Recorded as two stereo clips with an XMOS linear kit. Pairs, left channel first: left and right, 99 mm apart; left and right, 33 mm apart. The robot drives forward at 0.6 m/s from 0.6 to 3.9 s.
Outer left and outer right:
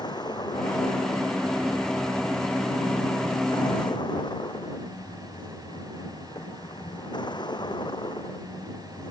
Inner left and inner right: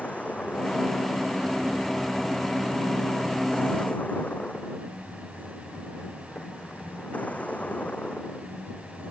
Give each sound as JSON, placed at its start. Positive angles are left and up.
{"t": 0.0, "sound": "a vehicle", "side_deg": 45}